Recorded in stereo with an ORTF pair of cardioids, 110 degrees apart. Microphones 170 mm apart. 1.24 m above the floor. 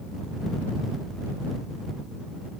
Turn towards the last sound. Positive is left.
No sound to turn to.